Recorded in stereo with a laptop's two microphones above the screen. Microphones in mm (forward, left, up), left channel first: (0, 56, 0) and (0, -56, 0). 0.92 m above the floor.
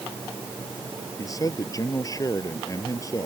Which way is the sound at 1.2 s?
30° left (ahead or behind).